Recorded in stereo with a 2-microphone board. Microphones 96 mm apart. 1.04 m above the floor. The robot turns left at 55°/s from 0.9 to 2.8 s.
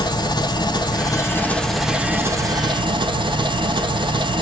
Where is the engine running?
45° left, 0.8 m; by 4.4 s 60° right, 0.8 m.